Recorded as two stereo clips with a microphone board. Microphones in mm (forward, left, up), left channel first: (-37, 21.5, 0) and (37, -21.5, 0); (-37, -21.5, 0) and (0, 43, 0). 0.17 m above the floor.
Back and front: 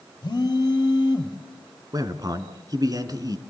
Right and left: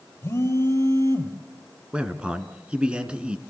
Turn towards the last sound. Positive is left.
turn(degrees=-10)